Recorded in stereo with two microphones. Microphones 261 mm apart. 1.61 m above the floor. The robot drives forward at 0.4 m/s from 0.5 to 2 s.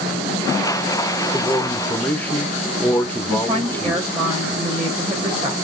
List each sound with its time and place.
1.3 s a man speaking: 5° left (ahead or behind), 1.1 m
3.3 s a woman speaking: 20° right (ahead or behind), 1.7 m